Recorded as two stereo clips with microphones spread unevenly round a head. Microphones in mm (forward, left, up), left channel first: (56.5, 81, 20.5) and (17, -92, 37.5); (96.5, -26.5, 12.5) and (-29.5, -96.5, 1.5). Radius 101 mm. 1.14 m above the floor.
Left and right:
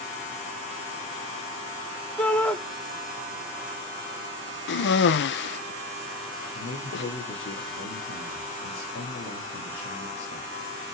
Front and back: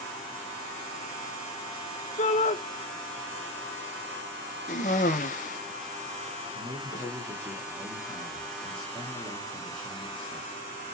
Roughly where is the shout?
Ahead.